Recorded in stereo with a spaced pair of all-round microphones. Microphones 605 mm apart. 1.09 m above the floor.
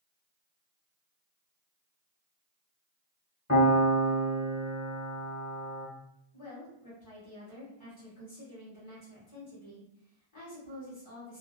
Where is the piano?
25° left (ahead or behind), 1.3 m.